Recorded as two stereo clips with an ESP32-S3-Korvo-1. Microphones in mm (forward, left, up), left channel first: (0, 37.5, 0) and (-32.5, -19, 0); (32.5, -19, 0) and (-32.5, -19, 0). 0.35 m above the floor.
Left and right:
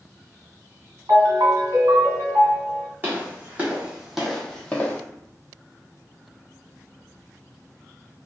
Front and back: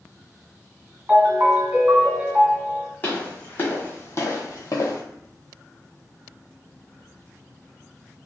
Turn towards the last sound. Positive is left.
turn(degrees=5)